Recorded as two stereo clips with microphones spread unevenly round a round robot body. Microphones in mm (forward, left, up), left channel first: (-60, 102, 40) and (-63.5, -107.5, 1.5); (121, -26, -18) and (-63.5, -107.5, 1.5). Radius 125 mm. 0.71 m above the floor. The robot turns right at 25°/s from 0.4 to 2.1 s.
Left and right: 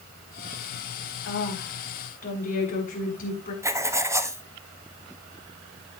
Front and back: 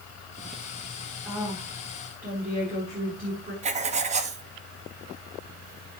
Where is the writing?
130° right, 1.1 m.